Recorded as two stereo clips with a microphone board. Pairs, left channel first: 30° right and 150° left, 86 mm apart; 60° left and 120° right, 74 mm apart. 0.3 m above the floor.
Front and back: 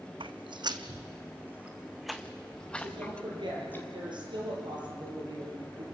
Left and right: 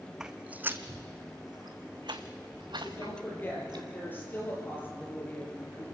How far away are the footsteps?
About 1.0 m.